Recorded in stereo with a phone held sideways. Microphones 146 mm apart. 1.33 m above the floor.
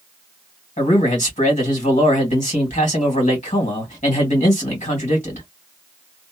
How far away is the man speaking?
About 1.8 m.